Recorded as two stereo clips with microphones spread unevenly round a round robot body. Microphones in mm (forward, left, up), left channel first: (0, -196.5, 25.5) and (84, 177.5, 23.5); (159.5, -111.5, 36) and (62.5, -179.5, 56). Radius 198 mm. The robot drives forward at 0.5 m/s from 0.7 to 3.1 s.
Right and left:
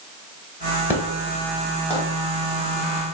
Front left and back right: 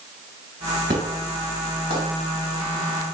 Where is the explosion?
160° left, 0.6 m; by 2.0 s 170° left, 1.1 m.